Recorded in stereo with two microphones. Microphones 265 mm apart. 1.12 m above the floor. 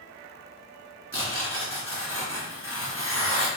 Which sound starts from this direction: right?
Tearing paper, at 1.1 s.